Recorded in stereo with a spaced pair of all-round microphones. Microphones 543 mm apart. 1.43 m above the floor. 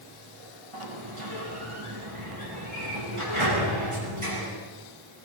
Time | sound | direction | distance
0.7 | a sliding door | 60° right (ahead or behind) | 9 m